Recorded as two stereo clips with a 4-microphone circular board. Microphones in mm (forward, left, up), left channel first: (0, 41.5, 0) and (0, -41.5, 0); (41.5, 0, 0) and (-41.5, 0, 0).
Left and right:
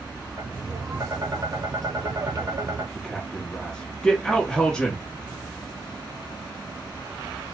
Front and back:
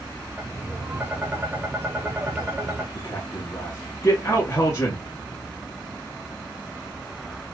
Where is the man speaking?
15° left, 1.3 m.